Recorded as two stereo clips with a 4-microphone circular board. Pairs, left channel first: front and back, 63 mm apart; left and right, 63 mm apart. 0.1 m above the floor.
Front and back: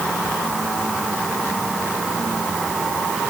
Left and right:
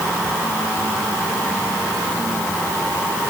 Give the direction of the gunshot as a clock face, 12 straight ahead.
I don't hear a gunshot.